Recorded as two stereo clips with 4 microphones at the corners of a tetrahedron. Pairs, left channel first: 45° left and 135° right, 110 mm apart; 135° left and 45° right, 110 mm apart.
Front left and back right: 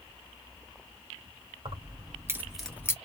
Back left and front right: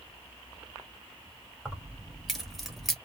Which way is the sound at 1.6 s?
135° right.